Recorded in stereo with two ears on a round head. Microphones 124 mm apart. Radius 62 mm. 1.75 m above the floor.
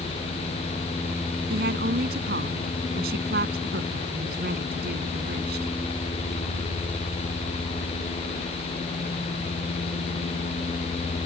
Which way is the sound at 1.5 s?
70° right (ahead or behind).